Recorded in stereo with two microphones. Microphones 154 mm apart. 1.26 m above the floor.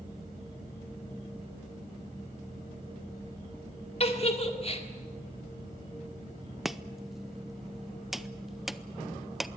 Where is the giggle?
45° left (ahead or behind), 1.8 m.